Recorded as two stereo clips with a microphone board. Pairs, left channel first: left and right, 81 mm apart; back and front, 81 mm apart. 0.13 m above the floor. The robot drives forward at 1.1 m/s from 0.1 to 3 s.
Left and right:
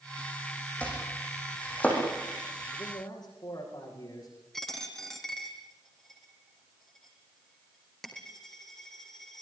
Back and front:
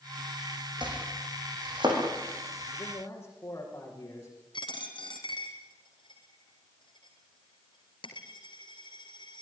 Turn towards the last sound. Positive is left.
turn(degrees=175)